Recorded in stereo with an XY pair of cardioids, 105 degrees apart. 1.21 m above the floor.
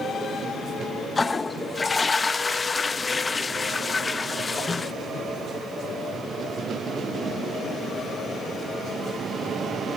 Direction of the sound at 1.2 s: 25° left.